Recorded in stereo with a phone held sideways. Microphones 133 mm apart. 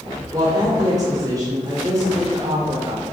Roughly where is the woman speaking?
Right.